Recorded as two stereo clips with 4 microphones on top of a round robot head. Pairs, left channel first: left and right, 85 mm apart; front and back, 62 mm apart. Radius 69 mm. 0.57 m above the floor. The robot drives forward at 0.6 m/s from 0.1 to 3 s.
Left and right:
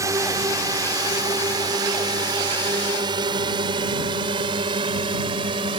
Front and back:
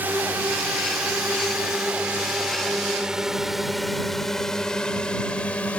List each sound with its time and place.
0.0 s a drone: 125° right; by 5.8 s 70° right